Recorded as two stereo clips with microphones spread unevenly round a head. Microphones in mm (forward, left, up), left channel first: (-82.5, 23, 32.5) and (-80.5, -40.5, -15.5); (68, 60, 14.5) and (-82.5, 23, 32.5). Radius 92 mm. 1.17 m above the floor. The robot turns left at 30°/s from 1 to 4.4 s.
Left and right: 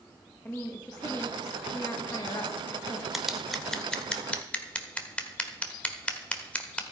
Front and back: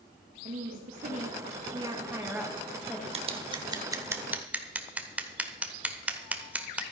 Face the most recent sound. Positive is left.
turn(degrees=120)